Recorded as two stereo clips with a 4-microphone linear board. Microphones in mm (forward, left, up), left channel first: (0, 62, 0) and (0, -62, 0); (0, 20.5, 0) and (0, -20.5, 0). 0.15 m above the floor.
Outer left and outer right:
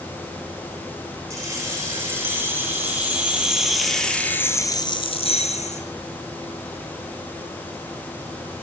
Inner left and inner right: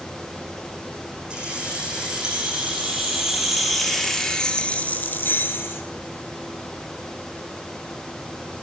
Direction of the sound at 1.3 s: 20° right (ahead or behind).